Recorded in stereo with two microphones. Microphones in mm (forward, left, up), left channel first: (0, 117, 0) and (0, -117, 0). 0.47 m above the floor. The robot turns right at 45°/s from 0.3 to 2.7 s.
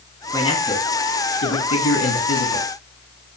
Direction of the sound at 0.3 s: 15° left.